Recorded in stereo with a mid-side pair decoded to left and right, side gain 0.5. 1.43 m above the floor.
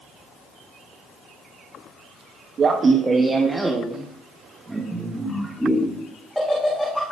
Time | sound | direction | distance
2.6 | laughter | 45° right | 1.1 m